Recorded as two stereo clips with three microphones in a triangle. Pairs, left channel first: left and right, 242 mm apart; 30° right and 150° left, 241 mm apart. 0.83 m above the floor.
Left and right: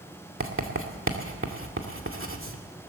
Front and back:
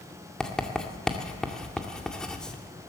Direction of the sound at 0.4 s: 115° right.